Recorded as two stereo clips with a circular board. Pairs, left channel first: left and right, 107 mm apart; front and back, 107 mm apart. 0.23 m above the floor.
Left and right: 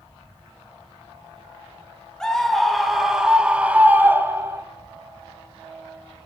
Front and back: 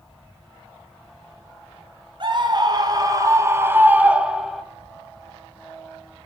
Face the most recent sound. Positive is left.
turn(degrees=-90)